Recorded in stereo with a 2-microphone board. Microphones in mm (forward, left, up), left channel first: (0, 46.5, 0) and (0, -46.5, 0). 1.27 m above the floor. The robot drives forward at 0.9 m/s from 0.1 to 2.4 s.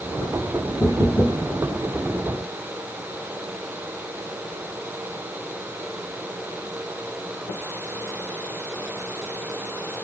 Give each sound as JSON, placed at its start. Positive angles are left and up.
{"t": 0.8, "sound": "knocking", "side_deg": 10, "distance_m": 1.3}